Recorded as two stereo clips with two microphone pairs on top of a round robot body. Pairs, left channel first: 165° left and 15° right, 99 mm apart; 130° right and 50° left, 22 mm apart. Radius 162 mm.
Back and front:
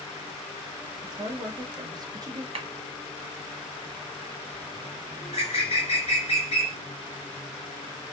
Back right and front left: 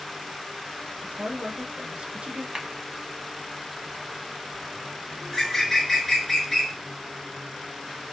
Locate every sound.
1.0 s a woman speaking: 35° left, 0.8 m
2.5 s a clap: 5° left, 1.2 m
5.2 s a bird: 150° left, 0.6 m